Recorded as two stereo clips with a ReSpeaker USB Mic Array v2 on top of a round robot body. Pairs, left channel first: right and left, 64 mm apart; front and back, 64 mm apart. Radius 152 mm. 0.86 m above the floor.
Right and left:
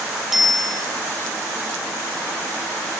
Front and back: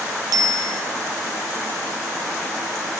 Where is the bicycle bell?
Straight behind, 2.5 m.